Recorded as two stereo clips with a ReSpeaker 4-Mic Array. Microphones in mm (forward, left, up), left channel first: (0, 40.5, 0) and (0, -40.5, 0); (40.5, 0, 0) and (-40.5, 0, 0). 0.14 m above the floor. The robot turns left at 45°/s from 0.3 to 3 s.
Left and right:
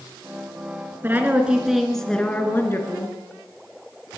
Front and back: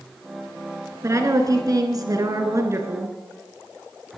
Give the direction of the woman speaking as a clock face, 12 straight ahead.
5 o'clock.